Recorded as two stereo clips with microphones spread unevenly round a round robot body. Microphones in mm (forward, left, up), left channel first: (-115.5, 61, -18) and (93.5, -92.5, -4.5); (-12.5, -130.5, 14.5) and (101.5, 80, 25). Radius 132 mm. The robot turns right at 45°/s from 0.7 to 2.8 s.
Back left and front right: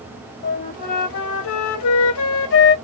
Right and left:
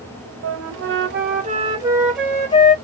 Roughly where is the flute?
Left.